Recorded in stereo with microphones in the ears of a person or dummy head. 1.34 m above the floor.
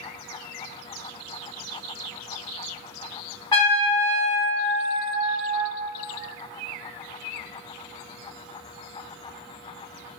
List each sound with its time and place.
3.5 s a trumpet: 25° left (ahead or behind), 0.9 m